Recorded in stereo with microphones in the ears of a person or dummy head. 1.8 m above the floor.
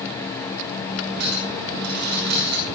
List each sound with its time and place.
1.2 s a clink: 65° right (ahead or behind), 5.5 m